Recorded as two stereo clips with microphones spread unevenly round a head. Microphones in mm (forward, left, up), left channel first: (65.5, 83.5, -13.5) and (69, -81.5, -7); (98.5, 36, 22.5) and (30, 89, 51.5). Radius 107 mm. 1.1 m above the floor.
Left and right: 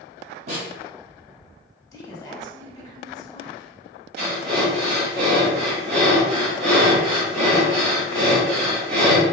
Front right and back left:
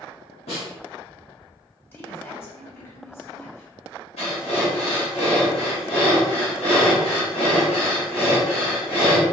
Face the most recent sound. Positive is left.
turn(degrees=-80)